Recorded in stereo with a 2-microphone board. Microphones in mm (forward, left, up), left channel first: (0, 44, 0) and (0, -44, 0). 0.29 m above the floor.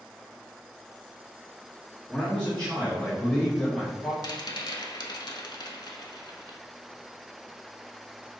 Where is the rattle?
55° left (ahead or behind), 0.5 m.